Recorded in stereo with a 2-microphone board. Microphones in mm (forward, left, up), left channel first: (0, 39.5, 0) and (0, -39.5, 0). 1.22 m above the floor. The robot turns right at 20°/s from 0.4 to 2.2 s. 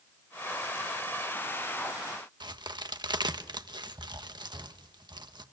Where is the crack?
65° right (ahead or behind), 1.2 m.